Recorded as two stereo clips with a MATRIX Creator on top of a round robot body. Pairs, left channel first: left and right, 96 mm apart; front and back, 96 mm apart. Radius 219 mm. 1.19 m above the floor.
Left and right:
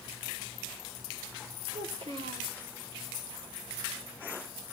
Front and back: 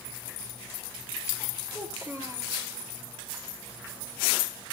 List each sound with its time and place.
1.7 s a child speaking: 110° right, 4 m